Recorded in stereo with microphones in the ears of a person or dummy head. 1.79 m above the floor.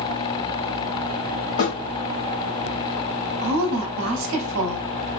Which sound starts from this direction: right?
A woman speaking, at 3.4 s.